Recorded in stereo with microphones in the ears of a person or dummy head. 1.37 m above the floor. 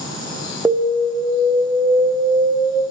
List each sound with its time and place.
0.7 s an alarm: 5° right (ahead or behind), 0.6 m